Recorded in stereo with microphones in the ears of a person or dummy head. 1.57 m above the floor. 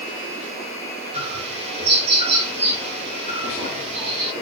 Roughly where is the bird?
Right.